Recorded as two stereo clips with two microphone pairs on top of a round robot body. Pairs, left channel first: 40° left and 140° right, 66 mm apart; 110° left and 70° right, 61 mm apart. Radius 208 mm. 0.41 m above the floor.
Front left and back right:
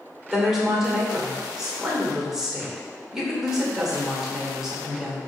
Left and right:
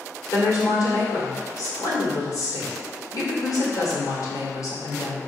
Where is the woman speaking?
135° left, 2.5 m.